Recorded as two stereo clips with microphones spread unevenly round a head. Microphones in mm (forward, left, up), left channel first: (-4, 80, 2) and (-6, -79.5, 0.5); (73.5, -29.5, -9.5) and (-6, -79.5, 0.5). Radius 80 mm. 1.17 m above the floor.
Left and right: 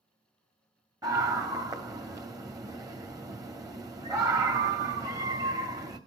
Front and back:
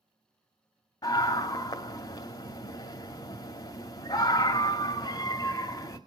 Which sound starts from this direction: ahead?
A scream, at 1.0 s.